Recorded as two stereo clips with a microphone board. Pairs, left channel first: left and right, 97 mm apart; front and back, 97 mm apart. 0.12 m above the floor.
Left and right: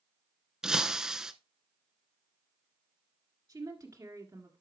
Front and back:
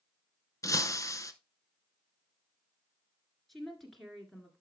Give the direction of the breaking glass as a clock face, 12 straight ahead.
12 o'clock.